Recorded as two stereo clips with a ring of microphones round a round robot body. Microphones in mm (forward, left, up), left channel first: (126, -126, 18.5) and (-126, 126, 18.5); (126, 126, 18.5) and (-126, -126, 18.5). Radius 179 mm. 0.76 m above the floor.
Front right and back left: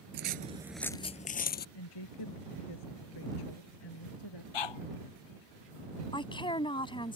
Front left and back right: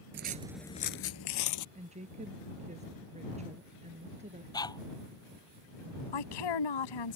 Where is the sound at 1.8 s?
65° right.